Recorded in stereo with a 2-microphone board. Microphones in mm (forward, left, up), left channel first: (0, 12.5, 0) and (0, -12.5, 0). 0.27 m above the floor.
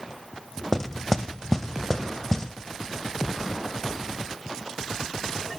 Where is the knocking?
15° left (ahead or behind), 0.6 m.